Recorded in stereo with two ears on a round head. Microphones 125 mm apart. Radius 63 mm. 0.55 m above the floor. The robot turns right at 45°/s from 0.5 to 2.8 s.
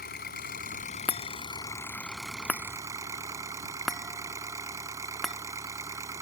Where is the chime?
40° left (ahead or behind); by 5.4 s centre (ahead or behind).